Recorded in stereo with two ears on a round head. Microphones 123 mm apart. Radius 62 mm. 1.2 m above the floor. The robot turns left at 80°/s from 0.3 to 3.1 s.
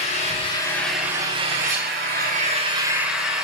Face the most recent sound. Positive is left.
turn(degrees=-175)